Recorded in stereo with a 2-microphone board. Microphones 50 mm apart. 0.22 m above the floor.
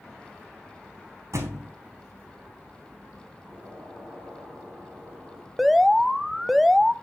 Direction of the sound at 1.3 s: 85° right.